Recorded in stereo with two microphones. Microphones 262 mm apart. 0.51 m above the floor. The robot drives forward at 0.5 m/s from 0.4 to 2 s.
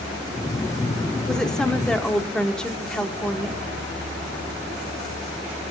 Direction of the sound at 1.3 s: Centre (ahead or behind).